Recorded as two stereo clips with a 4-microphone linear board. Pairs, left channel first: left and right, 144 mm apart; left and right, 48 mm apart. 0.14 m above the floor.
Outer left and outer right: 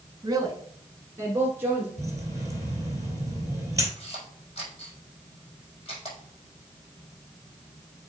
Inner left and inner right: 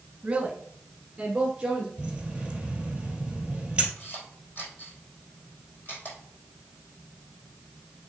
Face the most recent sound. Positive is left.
turn(degrees=45)  # may be behind; listen again after turning